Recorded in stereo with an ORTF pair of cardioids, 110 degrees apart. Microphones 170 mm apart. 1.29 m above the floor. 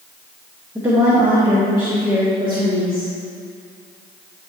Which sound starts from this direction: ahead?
A woman speaking, at 0.8 s.